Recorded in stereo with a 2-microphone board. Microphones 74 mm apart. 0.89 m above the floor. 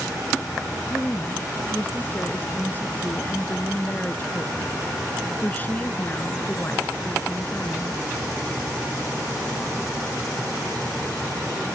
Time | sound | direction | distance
0.9 | a woman speaking | 25° left (ahead or behind) | ?